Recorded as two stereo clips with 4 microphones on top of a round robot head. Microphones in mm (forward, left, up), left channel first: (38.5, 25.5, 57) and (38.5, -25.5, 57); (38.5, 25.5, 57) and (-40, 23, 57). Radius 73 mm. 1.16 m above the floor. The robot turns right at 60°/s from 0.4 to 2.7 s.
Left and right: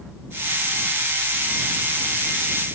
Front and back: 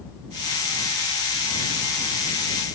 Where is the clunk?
I don't hear a clunk.